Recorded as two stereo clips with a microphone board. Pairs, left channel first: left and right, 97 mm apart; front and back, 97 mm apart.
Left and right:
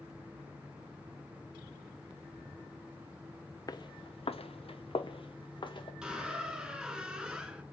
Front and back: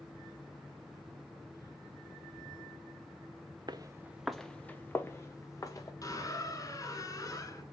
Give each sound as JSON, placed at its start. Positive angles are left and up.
{"t": 3.7, "sound": "footsteps", "azimuth_deg": 135, "distance_m": 0.6}
{"t": 6.0, "sound": "a squeak", "azimuth_deg": -10, "distance_m": 1.1}